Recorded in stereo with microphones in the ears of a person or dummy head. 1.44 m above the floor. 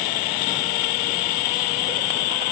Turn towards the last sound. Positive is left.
No sound to turn to.